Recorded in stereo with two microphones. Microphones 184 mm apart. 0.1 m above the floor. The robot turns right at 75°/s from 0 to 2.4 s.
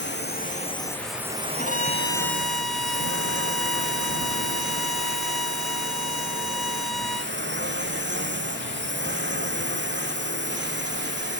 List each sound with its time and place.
0.0 s a drone: 100° left; by 11.4 s 80° right
1.6 s a violin: 120° left; by 7.3 s straight behind